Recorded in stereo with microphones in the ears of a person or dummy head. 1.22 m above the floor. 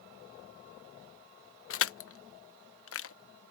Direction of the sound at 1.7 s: 65° left (ahead or behind).